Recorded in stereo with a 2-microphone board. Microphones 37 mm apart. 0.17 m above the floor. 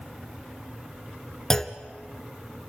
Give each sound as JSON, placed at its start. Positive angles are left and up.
{"t": 1.5, "sound": "a clunk", "side_deg": 10, "distance_m": 0.9}